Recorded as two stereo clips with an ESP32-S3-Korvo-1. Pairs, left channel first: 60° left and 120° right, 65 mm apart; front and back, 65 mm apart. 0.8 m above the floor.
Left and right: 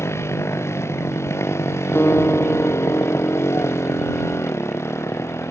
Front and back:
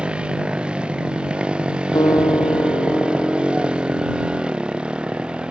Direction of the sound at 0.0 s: 105° left.